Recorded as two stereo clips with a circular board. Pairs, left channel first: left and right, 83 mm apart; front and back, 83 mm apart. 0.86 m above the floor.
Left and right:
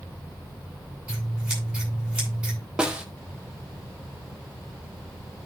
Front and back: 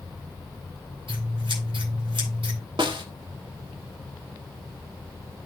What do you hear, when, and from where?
1.1 s scissors: 165° right, 10 m
2.8 s a snare drum: 170° right, 1.5 m